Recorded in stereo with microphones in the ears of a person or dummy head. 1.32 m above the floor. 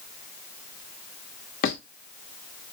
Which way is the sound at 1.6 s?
45° left (ahead or behind).